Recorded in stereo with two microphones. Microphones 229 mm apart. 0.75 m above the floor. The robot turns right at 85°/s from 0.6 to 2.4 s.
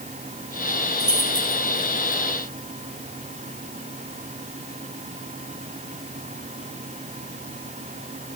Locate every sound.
1.0 s keys jangling: 45° right (ahead or behind), 3.5 m; by 2.2 s 35° right (ahead or behind), 3.5 m